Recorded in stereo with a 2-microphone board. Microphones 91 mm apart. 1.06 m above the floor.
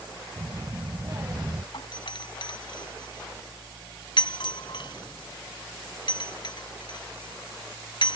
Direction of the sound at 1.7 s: 60° left (ahead or behind).